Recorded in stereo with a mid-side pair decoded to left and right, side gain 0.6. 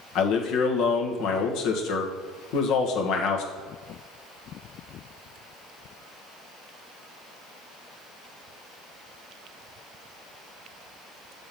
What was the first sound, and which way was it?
A man speaking, 70° left.